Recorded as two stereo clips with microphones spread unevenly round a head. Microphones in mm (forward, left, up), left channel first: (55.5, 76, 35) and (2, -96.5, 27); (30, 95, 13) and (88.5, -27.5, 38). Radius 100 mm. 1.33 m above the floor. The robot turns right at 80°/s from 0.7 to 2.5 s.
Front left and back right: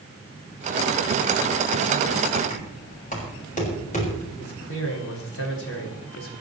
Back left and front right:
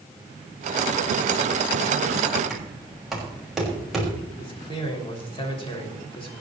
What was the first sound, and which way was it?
Knocking, 25° left.